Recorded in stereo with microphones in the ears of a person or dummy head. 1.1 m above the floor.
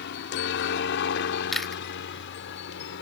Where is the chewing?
5° left (ahead or behind).